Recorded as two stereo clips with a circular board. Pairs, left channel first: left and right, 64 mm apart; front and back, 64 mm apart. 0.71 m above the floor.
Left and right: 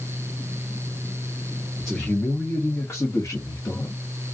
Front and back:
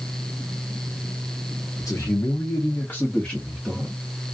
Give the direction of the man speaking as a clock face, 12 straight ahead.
12 o'clock.